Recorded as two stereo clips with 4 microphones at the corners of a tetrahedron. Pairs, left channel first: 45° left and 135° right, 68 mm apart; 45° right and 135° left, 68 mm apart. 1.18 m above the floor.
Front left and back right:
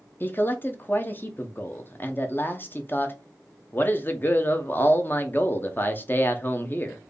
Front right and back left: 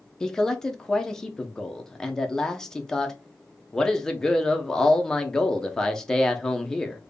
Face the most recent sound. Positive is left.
turn(degrees=30)